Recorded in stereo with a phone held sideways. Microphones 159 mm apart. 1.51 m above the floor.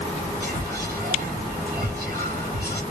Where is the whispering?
75° right (ahead or behind), 0.7 m.